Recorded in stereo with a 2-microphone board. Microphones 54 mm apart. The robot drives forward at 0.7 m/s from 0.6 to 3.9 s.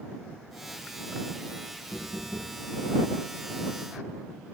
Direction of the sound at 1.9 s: 40° right (ahead or behind).